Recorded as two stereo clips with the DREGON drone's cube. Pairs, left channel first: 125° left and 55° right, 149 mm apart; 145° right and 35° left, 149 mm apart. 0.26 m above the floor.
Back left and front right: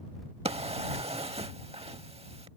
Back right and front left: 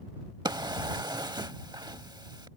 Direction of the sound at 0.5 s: 20° right.